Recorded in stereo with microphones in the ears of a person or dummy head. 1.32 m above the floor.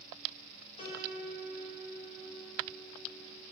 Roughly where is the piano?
Left.